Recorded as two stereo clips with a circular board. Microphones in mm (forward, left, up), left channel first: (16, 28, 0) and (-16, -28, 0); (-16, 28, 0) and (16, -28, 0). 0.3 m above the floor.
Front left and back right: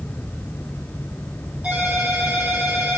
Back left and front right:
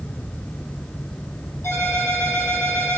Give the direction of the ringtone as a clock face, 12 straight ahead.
6 o'clock.